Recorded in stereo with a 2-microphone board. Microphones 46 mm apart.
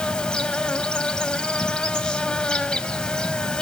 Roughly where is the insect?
Centre.